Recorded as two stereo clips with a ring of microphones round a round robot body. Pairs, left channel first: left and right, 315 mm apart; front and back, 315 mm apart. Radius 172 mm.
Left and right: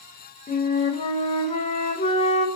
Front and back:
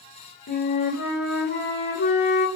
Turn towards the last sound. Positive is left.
turn(degrees=30)